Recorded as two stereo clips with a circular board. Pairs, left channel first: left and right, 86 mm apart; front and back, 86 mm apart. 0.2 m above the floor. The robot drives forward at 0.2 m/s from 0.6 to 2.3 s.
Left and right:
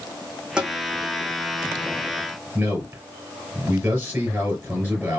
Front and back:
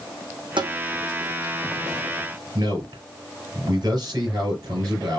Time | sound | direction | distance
0.6 | tapping | 165° right | 1.6 m
2.5 | a man speaking | 150° right | 4 m